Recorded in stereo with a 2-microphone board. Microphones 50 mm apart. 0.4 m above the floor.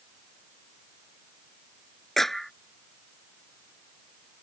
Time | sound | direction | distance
2.2 | a clap | 5° left (ahead or behind) | ?